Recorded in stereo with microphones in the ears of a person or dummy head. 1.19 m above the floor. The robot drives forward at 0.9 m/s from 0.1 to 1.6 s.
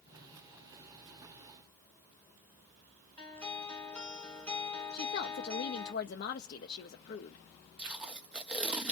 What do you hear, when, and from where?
3.2 s a guitar: 10° left (ahead or behind), 2 m
4.9 s a woman speaking: 50° left (ahead or behind), 0.7 m
7.8 s tape being pulled: 10° right (ahead or behind), 0.5 m